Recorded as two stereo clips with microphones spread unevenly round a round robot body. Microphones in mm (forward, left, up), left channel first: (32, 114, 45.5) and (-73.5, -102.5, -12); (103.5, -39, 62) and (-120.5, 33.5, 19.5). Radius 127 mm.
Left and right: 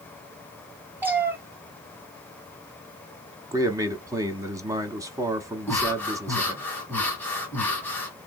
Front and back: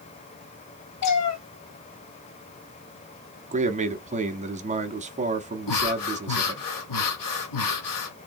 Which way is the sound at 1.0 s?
30° right.